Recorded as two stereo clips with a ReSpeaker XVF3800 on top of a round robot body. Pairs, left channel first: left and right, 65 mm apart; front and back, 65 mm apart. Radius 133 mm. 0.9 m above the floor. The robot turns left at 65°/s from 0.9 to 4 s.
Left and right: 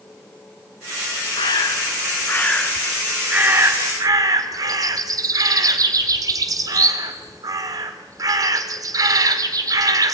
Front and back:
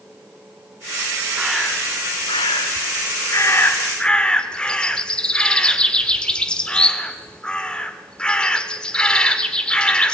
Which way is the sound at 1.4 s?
100° left.